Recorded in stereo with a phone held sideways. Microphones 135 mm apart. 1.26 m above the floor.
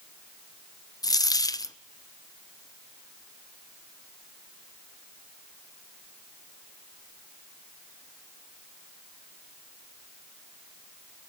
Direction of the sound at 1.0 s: 30° left (ahead or behind).